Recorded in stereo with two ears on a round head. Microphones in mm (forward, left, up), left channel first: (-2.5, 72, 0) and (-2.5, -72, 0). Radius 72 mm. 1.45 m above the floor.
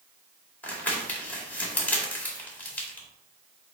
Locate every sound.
0.6 s crumpling: 10° left (ahead or behind), 2.0 m